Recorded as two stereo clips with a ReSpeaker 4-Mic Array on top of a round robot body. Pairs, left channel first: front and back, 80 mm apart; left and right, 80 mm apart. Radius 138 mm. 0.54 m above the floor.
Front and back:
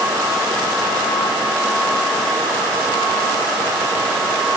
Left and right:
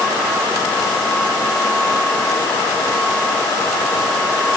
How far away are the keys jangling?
I don't hear keys jangling.